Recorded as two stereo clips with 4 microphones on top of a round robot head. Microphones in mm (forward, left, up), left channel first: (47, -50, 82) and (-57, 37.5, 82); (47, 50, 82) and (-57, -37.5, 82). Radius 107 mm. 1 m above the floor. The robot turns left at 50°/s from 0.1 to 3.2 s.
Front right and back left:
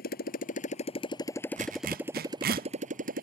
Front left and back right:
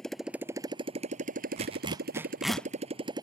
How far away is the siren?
No siren in this recording.